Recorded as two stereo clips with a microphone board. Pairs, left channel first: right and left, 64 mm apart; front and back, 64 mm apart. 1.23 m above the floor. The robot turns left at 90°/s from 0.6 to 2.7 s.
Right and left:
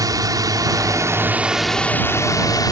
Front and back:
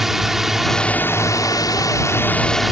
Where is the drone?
95° left; by 2.7 s 95° right.